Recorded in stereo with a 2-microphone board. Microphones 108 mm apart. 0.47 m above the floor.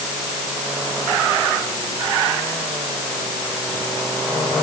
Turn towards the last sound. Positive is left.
No sound to turn to.